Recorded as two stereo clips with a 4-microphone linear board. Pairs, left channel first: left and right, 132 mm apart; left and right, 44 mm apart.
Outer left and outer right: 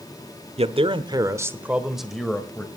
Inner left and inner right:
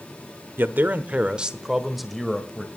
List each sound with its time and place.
0.6 s a man speaking: 50° right (ahead or behind), 1.1 m; by 2.7 s 10° left (ahead or behind), 1.9 m